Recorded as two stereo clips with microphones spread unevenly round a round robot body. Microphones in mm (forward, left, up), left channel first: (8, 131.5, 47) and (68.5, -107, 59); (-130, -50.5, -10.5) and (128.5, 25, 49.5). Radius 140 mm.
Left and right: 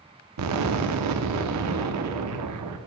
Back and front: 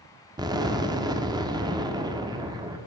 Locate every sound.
0.4 s an explosion: 60° right, 1.0 m